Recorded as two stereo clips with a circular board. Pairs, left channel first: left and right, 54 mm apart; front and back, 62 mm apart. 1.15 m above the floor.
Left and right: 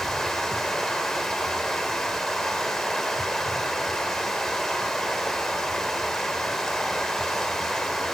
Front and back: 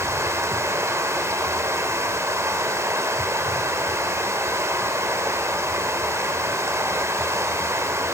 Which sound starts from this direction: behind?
Running water, at 0.0 s.